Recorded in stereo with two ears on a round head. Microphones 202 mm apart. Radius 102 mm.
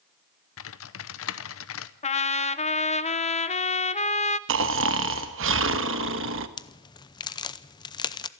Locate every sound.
0.6 s typing on a keyboard: 65° left (ahead or behind), 0.9 m
2.0 s a trumpet: 30° left (ahead or behind), 0.8 m
4.5 s snoring: 60° right (ahead or behind), 1.2 m
6.6 s a crack: 20° left (ahead or behind), 0.6 m